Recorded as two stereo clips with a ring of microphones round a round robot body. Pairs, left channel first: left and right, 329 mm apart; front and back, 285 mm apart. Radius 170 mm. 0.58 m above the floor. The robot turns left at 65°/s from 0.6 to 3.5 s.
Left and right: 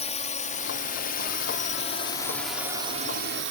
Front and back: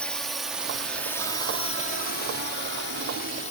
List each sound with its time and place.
0.0 s a drone: 80° left; by 3.5 s 60° right